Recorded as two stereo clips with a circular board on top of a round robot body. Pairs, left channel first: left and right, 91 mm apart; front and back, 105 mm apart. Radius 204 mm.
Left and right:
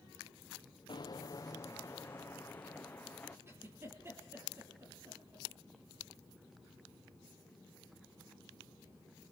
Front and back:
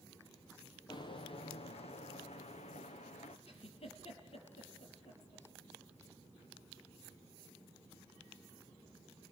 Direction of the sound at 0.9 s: 50° left.